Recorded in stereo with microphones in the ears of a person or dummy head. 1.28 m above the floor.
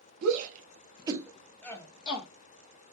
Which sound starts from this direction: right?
A shout, at 0.2 s.